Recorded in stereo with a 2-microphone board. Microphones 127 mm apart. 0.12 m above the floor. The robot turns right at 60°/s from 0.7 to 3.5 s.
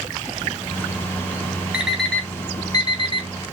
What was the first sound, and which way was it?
An alarm clock, 10° right (ahead or behind).